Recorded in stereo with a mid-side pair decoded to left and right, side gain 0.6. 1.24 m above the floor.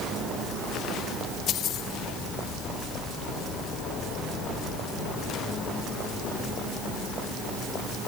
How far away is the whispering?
I don't hear whispering.